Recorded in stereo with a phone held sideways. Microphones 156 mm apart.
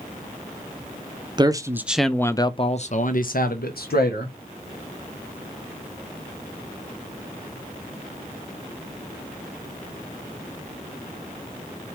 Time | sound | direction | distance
1.4 | a man speaking | 30° right (ahead or behind) | 0.7 m